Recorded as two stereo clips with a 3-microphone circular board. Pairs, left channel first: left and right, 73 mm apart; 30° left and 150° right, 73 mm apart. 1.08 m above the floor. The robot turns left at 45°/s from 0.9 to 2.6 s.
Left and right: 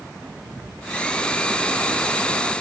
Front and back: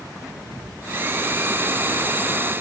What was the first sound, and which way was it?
Only background noise.